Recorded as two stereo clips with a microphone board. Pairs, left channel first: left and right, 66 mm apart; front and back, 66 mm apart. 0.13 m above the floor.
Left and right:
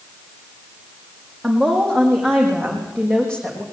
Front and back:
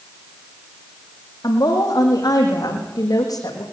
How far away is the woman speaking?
About 5.5 m.